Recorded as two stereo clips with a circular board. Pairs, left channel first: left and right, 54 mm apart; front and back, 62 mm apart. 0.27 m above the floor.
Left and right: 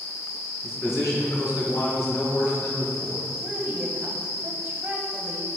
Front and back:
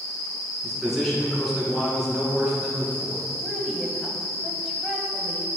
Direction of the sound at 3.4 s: 105° right.